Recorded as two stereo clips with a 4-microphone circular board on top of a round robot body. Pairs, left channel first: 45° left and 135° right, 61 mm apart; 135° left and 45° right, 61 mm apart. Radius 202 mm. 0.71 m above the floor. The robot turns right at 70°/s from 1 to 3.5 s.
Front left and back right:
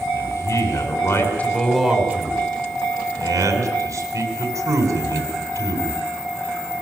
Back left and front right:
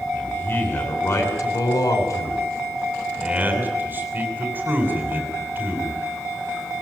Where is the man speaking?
80° left, 9 m; by 6.0 s 105° right, 9 m.